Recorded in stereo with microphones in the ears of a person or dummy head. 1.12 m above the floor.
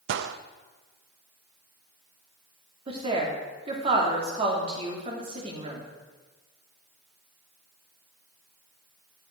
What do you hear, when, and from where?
0.1 s a gunshot: 75° right (ahead or behind), 0.6 m
2.9 s a woman speaking: 30° right (ahead or behind), 2.5 m